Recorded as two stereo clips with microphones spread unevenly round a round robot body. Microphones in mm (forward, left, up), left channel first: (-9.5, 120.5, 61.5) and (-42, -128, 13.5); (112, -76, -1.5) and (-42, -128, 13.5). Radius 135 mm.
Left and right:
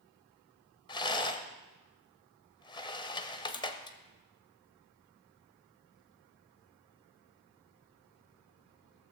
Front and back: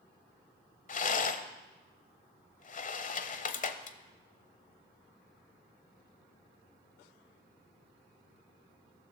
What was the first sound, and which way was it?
A rattle, 5° left.